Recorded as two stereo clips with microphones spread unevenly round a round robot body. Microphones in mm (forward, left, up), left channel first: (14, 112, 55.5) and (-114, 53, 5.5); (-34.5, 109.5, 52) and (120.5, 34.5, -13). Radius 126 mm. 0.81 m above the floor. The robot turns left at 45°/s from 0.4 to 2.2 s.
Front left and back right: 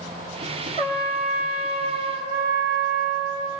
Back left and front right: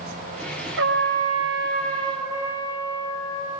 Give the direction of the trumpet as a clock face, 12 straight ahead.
1 o'clock.